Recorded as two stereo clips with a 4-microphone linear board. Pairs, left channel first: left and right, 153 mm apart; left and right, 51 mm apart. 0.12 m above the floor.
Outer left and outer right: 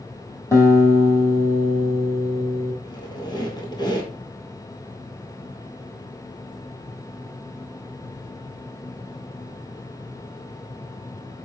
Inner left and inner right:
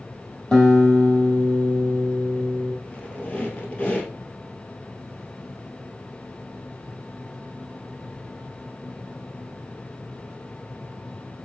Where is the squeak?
25° left (ahead or behind), 1.6 m.